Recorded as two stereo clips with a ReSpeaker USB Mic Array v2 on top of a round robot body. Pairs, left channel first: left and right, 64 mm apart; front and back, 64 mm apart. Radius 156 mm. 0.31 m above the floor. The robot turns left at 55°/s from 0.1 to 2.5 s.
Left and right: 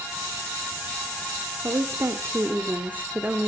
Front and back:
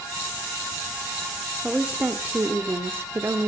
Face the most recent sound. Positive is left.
turn(degrees=-140)